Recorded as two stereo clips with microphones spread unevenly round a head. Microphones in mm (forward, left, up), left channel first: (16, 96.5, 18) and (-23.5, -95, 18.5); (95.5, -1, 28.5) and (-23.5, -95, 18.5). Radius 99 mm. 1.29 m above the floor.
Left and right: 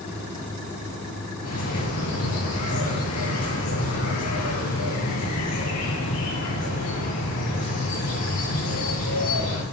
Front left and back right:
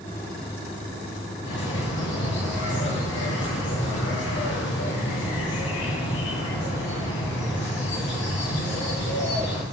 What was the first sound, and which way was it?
A bird, 65° left.